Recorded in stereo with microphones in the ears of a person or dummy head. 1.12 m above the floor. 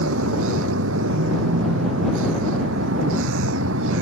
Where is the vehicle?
75° right (ahead or behind).